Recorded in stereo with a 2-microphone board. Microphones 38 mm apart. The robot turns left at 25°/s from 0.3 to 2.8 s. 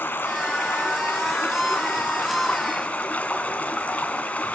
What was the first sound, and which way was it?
Running water, 100° left.